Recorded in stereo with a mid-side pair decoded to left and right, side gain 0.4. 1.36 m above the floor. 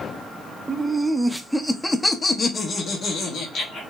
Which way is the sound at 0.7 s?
20° right.